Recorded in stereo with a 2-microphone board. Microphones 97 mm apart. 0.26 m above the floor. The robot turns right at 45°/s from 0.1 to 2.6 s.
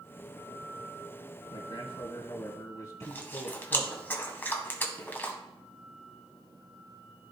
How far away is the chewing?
About 1.5 m.